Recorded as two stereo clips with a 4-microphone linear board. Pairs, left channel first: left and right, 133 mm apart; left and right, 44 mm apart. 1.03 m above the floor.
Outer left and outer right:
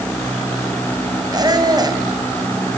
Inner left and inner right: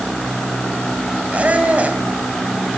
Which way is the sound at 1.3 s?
30° right (ahead or behind).